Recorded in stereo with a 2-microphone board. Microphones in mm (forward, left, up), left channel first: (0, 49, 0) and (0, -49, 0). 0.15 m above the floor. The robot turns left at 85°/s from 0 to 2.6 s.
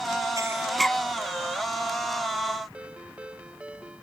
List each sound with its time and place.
0.4 s breathing: 35° right (ahead or behind); by 1.0 s 15° left (ahead or behind)
2.7 s a ringtone: 10° right (ahead or behind)